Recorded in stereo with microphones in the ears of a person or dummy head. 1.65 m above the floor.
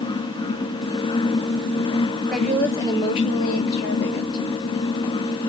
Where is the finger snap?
I don't hear a finger snap.